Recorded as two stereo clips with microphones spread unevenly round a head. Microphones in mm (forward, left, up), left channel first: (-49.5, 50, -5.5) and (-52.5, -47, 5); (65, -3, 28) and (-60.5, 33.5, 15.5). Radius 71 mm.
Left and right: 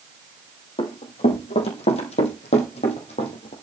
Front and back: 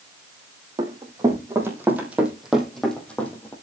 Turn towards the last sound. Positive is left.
turn(degrees=55)